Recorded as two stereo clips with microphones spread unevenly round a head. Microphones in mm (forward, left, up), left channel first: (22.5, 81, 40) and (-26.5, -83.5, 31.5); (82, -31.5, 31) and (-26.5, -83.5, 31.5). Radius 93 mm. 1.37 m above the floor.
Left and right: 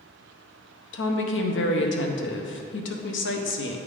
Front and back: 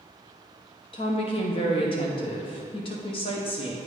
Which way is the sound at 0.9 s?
80° left.